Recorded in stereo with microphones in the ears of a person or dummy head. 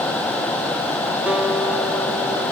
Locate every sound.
1.3 s a guitar: 10° right (ahead or behind), 1.0 m